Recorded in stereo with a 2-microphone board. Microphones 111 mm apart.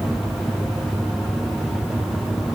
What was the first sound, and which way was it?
Only background noise.